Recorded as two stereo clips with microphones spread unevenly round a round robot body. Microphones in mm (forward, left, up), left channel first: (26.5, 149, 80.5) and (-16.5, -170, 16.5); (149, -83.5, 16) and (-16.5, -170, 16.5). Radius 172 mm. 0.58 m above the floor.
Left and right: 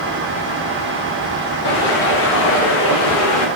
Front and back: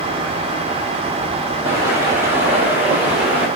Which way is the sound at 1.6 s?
140° left.